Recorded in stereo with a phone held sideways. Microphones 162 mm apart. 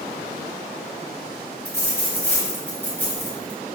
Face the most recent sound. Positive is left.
turn(degrees=10)  # may be behind; listen again after turning